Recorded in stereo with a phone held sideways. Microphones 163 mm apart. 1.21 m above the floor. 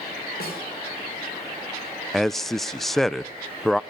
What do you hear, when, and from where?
0.4 s a snare drum: 70° left (ahead or behind), 5.5 m
2.1 s a man speaking: centre (ahead or behind), 0.5 m